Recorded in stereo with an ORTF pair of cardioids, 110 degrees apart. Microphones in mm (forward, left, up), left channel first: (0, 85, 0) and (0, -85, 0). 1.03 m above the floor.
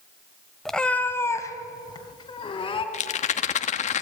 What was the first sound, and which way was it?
A cat meowing, straight ahead.